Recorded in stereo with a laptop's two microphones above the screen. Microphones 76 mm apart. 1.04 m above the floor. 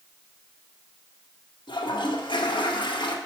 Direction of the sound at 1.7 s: 80° left.